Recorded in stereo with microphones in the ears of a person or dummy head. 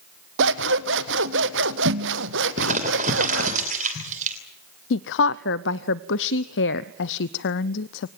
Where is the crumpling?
40° right (ahead or behind), 3 m.